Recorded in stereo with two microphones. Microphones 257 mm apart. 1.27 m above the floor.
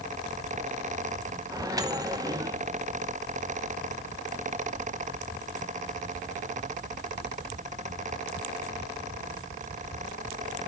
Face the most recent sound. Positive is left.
turn(degrees=-15)  # may be behind; listen again after turning